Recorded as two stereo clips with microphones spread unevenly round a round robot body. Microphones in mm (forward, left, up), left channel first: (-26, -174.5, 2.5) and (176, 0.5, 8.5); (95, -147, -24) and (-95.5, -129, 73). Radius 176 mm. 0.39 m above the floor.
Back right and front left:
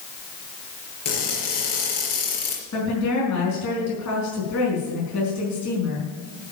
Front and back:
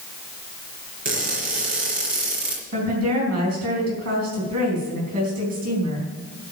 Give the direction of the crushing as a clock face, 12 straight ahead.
5 o'clock.